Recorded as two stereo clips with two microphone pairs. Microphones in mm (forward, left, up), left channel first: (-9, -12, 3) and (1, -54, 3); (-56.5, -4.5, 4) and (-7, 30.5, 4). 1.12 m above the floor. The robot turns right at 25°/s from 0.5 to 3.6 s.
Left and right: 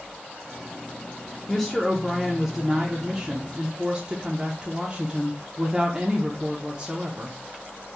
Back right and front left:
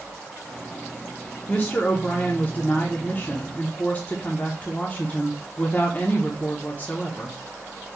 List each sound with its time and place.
1.5 s a woman speaking: 175° right, 0.8 m; by 7.4 s 120° right, 0.8 m